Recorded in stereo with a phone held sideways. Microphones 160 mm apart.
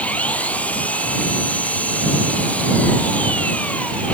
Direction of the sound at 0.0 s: 10° left (ahead or behind).